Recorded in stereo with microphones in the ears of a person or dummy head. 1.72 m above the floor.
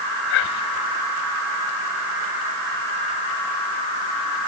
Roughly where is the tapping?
No tapping in this recording.